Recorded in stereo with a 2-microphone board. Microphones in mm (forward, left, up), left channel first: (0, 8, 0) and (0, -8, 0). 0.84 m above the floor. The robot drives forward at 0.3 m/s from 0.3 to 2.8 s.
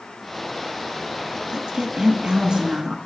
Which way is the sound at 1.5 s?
50° right (ahead or behind).